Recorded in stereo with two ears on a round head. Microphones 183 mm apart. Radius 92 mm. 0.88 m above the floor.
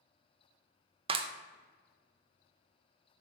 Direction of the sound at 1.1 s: 25° right (ahead or behind).